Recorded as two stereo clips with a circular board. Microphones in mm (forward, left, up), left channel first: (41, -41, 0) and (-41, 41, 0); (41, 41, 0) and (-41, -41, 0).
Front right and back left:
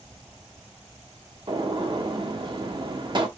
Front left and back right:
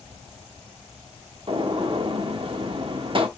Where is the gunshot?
175° right, 0.8 m.